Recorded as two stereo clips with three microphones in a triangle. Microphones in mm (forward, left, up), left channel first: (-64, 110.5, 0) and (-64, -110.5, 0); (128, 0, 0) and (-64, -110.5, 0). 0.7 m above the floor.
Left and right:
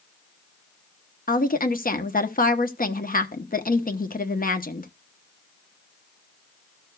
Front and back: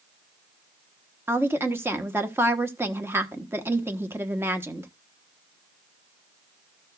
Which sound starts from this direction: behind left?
A woman speaking, at 1.3 s.